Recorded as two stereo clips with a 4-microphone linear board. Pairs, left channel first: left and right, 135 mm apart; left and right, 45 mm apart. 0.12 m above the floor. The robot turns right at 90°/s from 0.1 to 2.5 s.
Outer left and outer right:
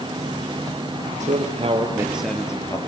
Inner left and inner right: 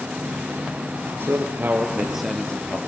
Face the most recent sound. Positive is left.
turn(degrees=25)